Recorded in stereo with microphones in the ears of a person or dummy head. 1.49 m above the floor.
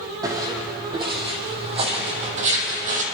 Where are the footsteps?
20° right (ahead or behind), 4 m; by 3.0 s 45° right (ahead or behind), 3.5 m.